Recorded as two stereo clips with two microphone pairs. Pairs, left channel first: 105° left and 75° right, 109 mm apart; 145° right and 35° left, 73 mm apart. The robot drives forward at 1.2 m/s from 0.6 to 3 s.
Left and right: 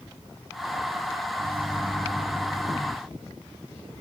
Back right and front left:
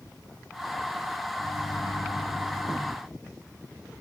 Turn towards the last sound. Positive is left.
turn(degrees=-165)